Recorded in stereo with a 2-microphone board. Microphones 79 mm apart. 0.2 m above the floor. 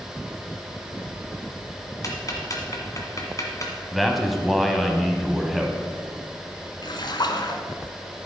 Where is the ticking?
45° left (ahead or behind), 1.6 m.